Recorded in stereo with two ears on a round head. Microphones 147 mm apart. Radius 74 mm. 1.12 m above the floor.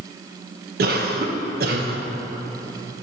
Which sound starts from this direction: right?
A cough, at 0.8 s.